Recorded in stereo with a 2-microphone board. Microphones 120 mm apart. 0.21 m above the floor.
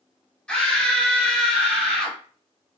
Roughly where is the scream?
Centre.